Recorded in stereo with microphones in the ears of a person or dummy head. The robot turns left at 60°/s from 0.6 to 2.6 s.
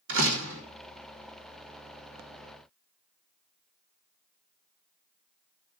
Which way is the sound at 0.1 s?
75° right (ahead or behind).